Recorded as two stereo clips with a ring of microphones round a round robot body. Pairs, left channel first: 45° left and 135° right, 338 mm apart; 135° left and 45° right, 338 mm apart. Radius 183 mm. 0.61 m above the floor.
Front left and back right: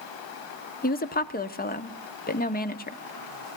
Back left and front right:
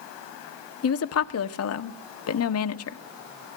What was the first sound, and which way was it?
A woman speaking, 105° left.